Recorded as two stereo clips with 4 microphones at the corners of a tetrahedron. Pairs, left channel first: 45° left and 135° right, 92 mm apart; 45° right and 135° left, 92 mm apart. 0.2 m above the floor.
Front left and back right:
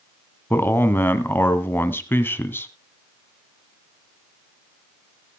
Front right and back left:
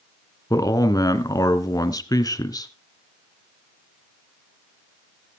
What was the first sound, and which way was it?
A man speaking, 15° right.